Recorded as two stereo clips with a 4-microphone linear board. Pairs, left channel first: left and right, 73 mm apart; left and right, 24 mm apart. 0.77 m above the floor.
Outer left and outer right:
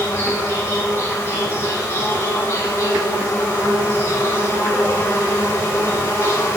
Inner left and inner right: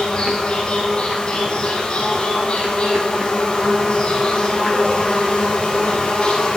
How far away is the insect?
About 4.5 m.